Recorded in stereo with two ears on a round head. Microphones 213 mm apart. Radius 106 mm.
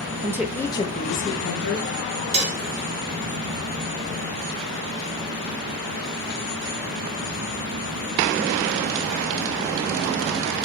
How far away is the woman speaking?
About 0.8 m.